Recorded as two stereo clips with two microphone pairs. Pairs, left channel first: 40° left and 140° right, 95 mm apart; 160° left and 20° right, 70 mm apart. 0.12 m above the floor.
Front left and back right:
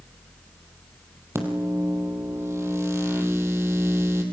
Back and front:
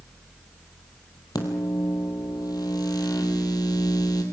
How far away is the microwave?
About 3 m.